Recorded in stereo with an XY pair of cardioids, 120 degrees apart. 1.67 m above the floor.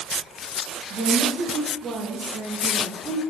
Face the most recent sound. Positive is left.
turn(degrees=-20)